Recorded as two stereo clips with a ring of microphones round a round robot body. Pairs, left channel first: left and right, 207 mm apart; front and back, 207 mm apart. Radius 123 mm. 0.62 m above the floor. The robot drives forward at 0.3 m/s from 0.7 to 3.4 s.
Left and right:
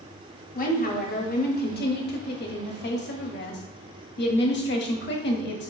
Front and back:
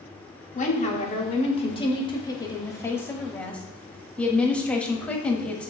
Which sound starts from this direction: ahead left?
A woman speaking, at 0.6 s.